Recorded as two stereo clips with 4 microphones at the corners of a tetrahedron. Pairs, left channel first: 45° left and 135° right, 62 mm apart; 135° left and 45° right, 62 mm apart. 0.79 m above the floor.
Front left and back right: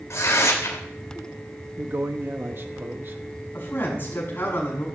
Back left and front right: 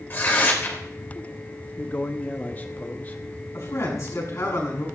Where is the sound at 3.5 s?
100° left, 6.5 m.